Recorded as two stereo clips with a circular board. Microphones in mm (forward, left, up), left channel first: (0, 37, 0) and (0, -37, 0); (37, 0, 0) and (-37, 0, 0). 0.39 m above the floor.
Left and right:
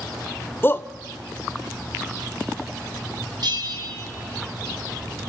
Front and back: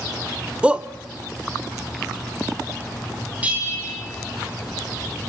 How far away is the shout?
About 0.9 m.